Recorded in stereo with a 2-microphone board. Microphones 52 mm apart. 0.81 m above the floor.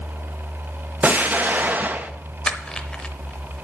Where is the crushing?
20° left (ahead or behind), 0.8 m.